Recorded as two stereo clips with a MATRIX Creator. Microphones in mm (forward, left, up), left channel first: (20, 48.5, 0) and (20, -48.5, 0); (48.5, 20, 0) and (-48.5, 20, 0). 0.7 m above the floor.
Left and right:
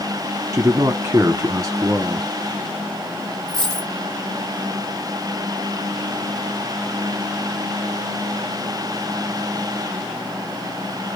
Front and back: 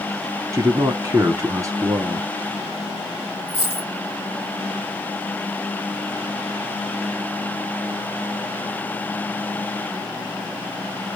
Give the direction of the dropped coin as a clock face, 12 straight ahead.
6 o'clock.